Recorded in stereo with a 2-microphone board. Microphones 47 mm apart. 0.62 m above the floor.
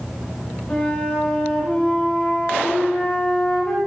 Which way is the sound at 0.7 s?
20° left (ahead or behind).